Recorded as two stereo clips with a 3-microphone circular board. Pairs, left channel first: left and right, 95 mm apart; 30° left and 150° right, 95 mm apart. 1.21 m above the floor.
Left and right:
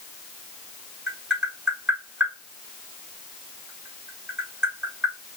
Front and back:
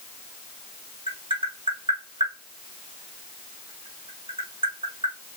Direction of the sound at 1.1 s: 170° right.